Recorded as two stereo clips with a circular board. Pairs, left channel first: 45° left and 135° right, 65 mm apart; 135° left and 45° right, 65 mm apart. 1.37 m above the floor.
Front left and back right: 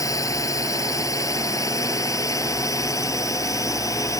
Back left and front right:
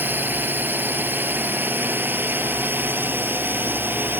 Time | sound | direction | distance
0.0 | a drone | 15° left | ?